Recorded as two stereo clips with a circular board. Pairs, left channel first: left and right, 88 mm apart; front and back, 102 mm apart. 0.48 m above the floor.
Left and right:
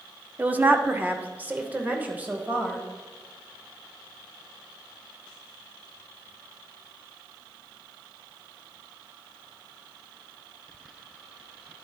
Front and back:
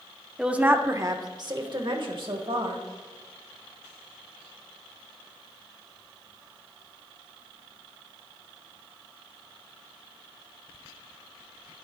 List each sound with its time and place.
0.4 s a woman speaking: 110° right, 0.7 m; by 2.8 s 160° right, 2 m